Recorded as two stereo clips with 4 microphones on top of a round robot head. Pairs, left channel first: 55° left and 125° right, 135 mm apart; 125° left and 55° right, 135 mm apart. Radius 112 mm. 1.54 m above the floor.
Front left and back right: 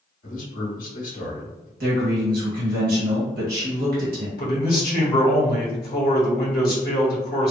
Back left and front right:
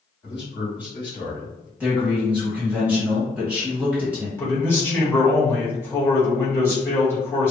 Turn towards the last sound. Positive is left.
turn(degrees=55)